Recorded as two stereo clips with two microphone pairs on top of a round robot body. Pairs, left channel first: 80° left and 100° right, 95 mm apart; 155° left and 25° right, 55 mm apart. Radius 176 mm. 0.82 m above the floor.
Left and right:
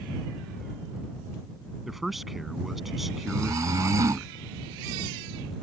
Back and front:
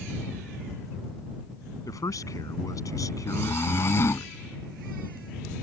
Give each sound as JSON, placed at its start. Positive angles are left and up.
{"t": 1.9, "sound": "a man speaking", "azimuth_deg": 170}
{"t": 3.3, "sound": "snoring", "azimuth_deg": -160}